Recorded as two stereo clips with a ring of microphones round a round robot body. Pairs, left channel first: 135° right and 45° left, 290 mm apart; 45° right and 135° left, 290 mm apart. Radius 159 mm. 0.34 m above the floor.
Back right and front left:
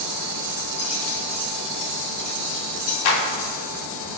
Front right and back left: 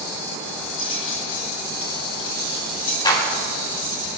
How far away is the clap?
About 3.5 m.